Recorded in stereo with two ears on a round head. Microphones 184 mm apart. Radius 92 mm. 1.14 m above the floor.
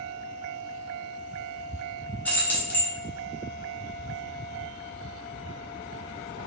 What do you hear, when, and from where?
2.2 s keys jangling: 10° left (ahead or behind), 0.8 m